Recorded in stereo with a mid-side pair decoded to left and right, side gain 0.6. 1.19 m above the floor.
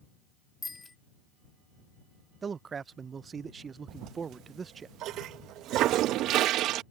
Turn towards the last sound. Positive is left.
turn(degrees=-60)